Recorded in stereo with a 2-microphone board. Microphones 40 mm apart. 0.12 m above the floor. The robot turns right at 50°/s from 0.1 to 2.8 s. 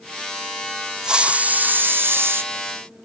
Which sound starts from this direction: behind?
A hiss, at 1.0 s.